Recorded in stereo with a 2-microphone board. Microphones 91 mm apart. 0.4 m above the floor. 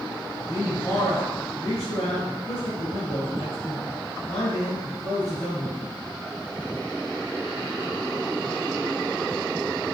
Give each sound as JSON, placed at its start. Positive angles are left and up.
{"t": 0.5, "sound": "a man speaking", "side_deg": 40, "distance_m": 4.0}